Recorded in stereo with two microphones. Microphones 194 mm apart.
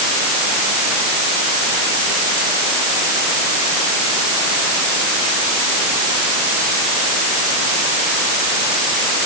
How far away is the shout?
No shout in this recording.